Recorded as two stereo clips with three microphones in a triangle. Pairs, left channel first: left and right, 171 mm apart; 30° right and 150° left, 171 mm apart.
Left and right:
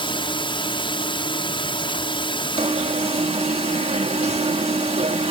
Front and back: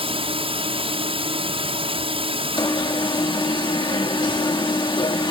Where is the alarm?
75° right.